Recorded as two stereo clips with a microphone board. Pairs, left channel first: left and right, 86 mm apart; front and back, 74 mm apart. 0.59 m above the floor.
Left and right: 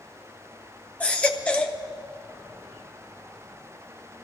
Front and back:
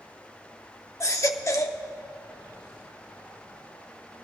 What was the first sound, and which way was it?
A baby crying, 20° left.